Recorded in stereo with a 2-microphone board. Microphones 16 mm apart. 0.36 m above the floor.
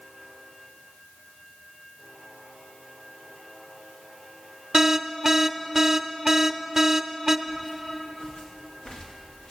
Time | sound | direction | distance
4.7 | an alarm | 20° right (ahead or behind) | 0.6 m
7.5 | footsteps | 75° left (ahead or behind) | 4 m